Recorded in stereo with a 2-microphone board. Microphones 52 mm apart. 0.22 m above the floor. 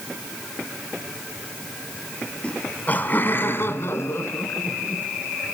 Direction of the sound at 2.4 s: 20° left (ahead or behind).